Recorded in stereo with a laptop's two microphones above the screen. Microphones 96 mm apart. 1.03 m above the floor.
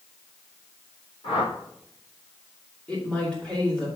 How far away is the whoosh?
About 3.5 m.